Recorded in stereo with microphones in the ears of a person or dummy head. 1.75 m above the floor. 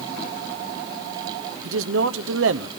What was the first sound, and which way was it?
A man speaking, 75° right (ahead or behind).